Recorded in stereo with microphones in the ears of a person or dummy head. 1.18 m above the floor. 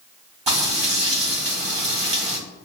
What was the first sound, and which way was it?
Frying, 25° right (ahead or behind).